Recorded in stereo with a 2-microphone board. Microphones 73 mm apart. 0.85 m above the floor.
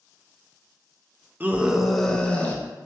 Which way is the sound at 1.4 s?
25° right (ahead or behind).